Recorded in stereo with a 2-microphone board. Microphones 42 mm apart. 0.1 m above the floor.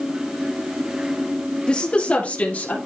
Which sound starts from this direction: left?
A woman speaking, at 1.7 s.